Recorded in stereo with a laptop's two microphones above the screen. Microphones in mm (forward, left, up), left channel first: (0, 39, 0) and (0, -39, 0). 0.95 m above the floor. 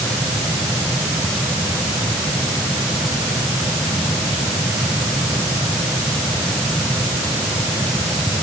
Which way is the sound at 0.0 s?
Centre (ahead or behind).